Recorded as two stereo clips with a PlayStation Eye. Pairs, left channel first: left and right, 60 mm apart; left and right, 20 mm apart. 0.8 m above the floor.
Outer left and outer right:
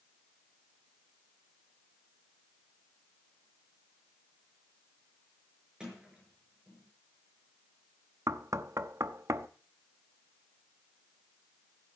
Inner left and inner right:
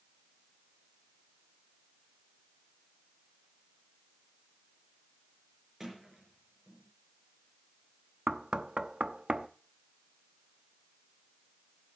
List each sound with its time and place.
5.8 s a sliding door: 15° right (ahead or behind), 5 m
8.3 s knocking: 55° right (ahead or behind), 0.7 m